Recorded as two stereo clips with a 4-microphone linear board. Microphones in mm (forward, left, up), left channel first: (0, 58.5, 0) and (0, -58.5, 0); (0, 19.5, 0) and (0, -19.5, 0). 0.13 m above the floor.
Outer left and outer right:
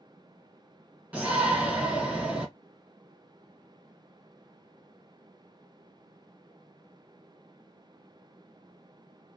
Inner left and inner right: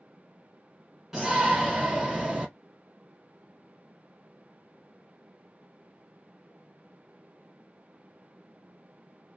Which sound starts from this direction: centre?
A shout, at 1.1 s.